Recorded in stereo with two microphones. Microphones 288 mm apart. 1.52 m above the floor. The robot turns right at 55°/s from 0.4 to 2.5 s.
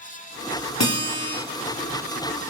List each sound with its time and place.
0.8 s a guitar: 115° left, 0.6 m; by 1.4 s 145° left, 0.6 m